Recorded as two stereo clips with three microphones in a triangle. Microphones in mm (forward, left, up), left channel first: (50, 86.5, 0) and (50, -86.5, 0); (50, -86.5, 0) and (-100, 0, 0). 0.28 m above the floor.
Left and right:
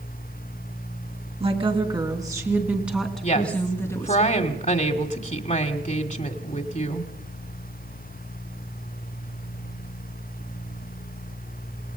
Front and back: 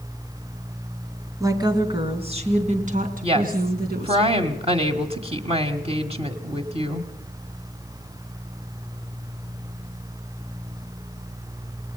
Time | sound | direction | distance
1.4 | a woman speaking | 140° right | 3.5 m
3.2 | a woman speaking | 110° left | 1.8 m